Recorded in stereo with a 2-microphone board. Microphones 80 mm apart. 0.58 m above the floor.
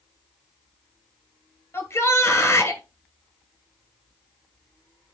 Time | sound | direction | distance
1.7 | a shout | 35° left (ahead or behind) | 2.5 m